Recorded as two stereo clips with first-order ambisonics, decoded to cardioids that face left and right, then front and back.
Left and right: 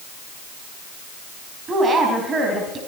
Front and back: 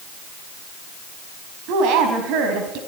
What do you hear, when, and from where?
1.7 s a woman speaking: 155° right, 4 m